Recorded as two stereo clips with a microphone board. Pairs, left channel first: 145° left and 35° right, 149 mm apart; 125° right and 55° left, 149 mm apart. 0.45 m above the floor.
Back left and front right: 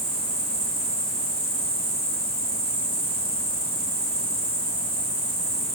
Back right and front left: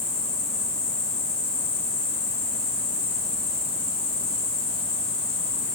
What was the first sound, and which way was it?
An insect, 40° right.